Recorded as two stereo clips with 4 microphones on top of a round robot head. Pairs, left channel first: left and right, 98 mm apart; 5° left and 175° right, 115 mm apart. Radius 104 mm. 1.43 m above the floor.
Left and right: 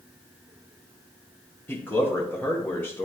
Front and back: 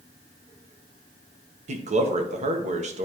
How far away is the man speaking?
About 1.2 m.